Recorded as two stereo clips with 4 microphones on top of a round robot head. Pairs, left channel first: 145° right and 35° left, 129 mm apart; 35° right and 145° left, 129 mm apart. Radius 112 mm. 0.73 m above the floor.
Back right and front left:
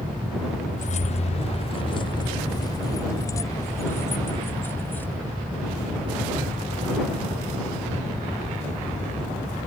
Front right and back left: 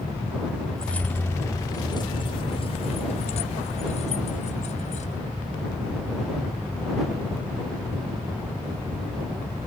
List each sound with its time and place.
0.8 s keys jangling: 120° right; by 5.2 s 65° right